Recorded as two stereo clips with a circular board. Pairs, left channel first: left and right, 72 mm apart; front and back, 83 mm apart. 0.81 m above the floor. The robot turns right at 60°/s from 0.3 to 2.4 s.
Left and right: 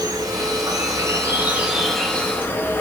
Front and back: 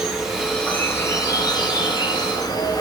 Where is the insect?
95° right, 0.9 m; by 2.8 s 30° left, 0.9 m.